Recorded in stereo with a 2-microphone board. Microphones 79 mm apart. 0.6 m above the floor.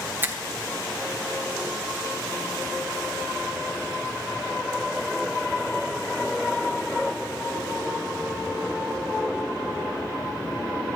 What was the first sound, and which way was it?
A finger snap, 25° right (ahead or behind).